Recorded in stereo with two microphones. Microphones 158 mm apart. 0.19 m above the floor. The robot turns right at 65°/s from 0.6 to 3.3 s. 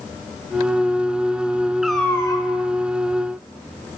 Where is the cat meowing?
5° right, 0.7 m; by 2.5 s 40° left, 0.7 m.